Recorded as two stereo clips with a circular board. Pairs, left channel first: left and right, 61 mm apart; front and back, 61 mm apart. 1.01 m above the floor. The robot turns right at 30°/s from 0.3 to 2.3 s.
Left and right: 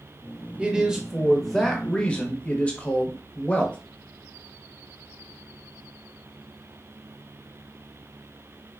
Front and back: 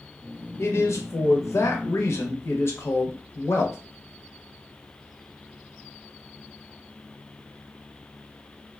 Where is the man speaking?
25° right, 0.7 m; by 3.8 s 30° left, 0.7 m.